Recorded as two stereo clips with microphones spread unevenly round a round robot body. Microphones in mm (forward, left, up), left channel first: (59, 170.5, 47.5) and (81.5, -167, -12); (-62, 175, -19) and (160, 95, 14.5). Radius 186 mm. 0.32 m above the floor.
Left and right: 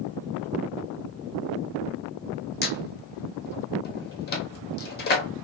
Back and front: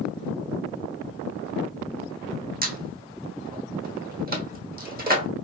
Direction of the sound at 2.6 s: 30° left.